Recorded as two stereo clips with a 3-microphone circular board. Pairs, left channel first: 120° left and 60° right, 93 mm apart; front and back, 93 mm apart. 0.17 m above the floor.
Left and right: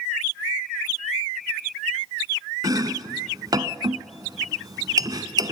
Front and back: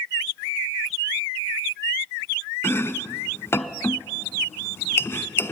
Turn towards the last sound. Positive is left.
turn(degrees=-50)